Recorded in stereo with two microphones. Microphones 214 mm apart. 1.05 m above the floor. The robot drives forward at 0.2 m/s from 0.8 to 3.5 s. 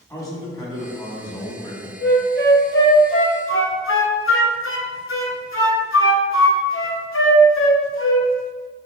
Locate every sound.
0.1 s a man speaking: 15° left (ahead or behind), 1.4 m; by 1.9 s 20° left (ahead or behind), 1.2 m
2.0 s a flute: 50° left (ahead or behind), 0.8 m; by 8.3 s 65° left (ahead or behind), 0.6 m